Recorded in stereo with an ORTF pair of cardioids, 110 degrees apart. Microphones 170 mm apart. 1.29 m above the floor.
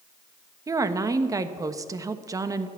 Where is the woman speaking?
20° right, 1.1 m.